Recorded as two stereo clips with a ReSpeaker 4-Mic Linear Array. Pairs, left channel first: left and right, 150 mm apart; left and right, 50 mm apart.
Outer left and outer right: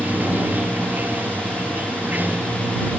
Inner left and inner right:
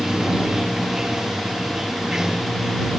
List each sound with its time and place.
0.0 s running water: 10° right (ahead or behind)